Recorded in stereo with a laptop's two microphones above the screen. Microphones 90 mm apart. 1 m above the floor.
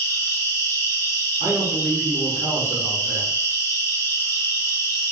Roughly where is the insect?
Left.